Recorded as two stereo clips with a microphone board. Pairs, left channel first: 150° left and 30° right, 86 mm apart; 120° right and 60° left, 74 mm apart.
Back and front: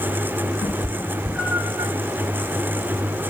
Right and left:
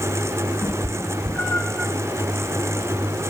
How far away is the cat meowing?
About 1.0 m.